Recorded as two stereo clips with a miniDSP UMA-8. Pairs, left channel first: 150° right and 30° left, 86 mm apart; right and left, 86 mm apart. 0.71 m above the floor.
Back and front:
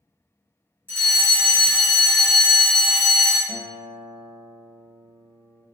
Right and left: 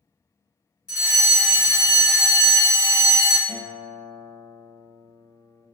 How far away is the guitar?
About 1.9 m.